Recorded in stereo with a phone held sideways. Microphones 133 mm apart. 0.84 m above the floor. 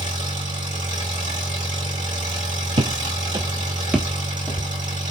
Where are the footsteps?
45° right (ahead or behind), 1.2 m; by 4.7 s 15° left (ahead or behind), 1.3 m.